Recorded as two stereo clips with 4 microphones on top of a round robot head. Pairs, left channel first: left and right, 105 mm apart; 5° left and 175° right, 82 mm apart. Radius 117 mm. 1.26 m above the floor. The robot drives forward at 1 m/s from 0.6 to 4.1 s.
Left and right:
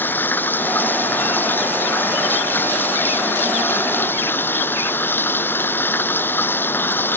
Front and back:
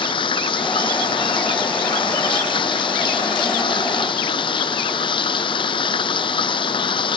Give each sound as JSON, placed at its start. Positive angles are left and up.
{"t": 0.0, "sound": "running water", "azimuth_deg": 20}